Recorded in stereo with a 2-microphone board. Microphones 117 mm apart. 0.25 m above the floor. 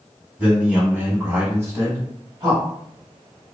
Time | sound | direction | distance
0.4 | a man speaking | 10° right (ahead or behind) | 1.6 m